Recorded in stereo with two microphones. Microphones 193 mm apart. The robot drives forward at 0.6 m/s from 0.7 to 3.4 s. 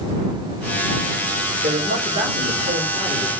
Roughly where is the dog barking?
No dog barking in this recording.